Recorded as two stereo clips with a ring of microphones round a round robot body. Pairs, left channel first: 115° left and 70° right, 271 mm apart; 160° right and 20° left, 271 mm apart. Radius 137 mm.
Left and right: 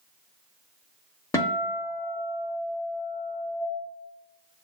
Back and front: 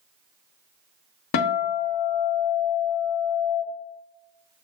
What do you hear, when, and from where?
1.3 s a guitar: 170° right, 0.6 m